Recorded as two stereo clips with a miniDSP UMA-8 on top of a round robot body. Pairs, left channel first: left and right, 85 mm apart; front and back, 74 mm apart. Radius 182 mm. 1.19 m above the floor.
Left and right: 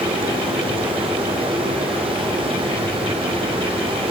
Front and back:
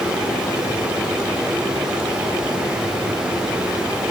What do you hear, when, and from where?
0.0 s running water: 100° right, 1.7 m